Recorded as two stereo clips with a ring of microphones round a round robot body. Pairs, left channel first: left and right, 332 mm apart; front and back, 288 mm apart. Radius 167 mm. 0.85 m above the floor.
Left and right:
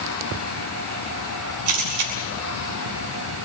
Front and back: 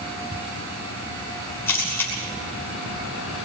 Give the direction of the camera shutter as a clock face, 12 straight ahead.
3 o'clock.